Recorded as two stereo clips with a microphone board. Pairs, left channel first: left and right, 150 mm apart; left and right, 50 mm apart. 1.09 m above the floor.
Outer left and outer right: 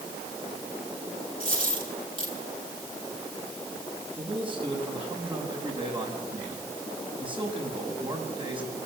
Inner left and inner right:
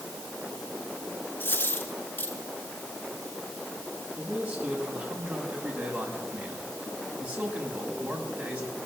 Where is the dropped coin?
35° left (ahead or behind), 7.5 m.